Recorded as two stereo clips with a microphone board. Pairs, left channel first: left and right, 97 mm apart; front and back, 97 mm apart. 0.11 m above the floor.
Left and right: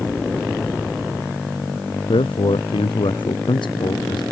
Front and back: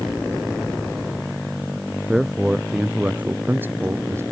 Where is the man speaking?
95° left; by 4.2 s 120° left.